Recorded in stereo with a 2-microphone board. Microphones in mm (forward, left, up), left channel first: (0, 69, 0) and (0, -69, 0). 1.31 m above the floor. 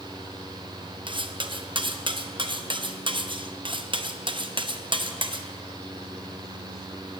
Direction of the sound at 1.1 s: 40° right (ahead or behind).